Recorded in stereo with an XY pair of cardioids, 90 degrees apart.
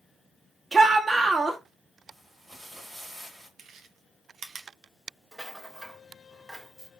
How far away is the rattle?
About 1.0 m.